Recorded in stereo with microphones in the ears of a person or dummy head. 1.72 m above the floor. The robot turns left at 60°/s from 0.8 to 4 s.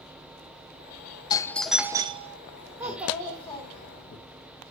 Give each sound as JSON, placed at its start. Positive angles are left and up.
{"t": 1.3, "sound": "a doorbell", "azimuth_deg": 25, "distance_m": 0.6}
{"t": 2.8, "sound": "a child speaking", "azimuth_deg": -155, "distance_m": 1.2}